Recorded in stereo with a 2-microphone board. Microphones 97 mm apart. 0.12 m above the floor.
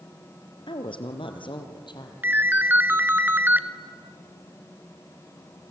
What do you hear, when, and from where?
0.7 s a woman speaking: 60° left (ahead or behind), 2 m; by 2.1 s 50° left (ahead or behind), 3 m
2.2 s a ringtone: 20° right (ahead or behind), 1.1 m